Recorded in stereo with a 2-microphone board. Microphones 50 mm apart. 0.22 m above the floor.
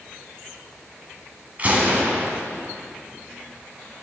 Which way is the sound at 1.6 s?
30° right (ahead or behind).